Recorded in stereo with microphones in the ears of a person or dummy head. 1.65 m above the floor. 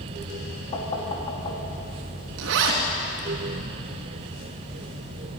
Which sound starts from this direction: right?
A zipper, at 2.4 s.